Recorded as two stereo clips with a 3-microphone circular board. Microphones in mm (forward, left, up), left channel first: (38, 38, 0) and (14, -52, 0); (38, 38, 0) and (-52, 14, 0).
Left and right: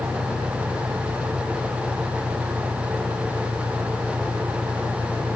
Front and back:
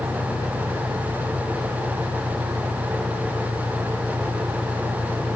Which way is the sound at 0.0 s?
10° left.